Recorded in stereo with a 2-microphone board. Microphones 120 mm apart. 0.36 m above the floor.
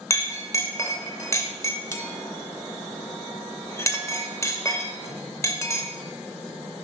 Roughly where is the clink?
Left.